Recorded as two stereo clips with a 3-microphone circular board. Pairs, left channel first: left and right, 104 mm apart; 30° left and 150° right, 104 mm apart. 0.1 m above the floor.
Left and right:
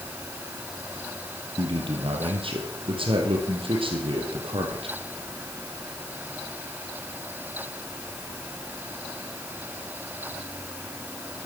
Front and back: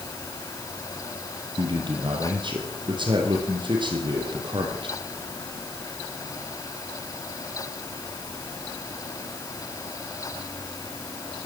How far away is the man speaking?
About 3 m.